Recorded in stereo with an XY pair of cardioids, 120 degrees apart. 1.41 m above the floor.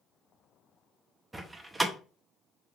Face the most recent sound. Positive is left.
turn(degrees=-20)